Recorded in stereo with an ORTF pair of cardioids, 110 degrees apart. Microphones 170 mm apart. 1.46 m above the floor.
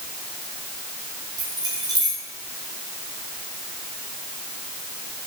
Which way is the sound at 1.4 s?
25° right.